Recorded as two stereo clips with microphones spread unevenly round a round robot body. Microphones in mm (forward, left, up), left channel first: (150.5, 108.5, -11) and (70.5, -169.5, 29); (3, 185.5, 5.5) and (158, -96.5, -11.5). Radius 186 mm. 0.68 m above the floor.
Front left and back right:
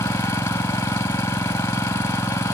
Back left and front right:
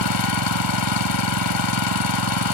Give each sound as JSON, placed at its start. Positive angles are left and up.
{"t": 0.0, "sound": "an engine running", "azimuth_deg": 155}